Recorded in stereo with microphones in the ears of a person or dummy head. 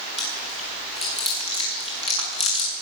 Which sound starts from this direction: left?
Chewing, at 0.2 s.